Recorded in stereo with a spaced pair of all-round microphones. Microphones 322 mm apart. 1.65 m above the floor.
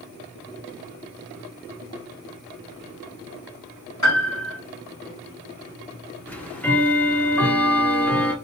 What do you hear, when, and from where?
4.0 s a piano: 60° left (ahead or behind), 1.5 m
6.3 s ticking: 5° left (ahead or behind), 0.6 m